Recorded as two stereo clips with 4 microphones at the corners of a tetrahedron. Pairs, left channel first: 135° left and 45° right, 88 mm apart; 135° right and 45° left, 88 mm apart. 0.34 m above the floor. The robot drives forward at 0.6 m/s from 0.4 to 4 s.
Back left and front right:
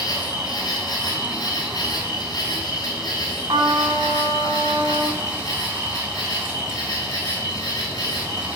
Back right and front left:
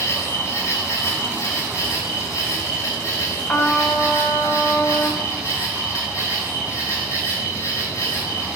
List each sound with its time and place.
0.0 s an insect: 170° left, 3 m; by 8.6 s 175° left, 5.5 m
3.5 s a trumpet: 80° right, 1.3 m; by 5.2 s 95° right, 1.3 m